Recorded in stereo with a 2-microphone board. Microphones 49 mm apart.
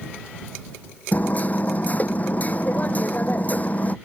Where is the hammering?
35° left (ahead or behind).